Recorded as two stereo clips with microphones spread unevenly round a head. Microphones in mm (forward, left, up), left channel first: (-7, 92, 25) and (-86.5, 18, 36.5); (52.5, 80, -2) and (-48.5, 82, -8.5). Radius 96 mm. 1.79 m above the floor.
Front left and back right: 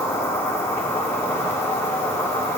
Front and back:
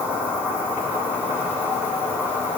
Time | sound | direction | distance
0.0 | an insect | 110° left | 3 m